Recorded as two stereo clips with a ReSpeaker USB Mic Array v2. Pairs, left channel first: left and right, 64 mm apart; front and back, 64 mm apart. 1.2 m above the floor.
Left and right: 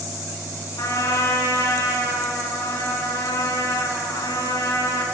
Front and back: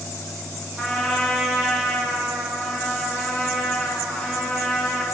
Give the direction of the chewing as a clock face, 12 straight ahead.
No chewing in this recording.